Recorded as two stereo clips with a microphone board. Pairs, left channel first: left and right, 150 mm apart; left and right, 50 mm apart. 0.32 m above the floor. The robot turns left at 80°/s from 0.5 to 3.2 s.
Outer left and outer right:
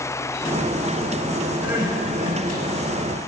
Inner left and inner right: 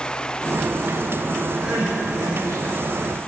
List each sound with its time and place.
1.6 s crying: 10° right, 4 m; by 2.6 s 90° right, 4 m